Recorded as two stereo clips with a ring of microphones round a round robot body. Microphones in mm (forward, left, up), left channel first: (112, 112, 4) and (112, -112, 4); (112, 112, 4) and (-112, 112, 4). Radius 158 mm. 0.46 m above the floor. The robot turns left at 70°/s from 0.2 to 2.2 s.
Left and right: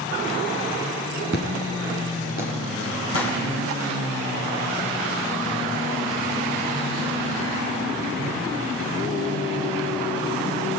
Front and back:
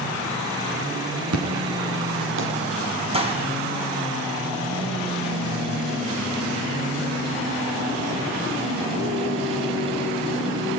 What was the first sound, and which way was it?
An explosion, 150° right.